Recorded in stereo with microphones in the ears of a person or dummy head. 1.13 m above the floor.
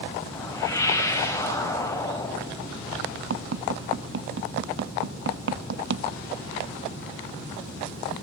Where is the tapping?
55° right (ahead or behind), 0.5 m.